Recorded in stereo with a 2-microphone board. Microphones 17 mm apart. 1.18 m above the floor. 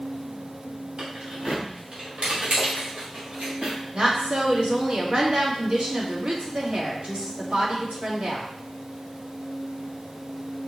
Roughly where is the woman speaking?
Right.